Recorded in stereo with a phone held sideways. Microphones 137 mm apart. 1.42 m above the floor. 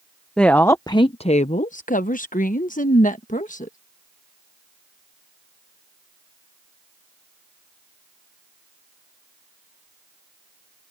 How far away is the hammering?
No hammering in this recording.